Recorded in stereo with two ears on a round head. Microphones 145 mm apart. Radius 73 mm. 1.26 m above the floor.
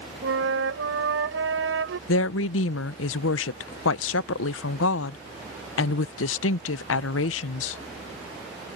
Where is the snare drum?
No snare drum in this recording.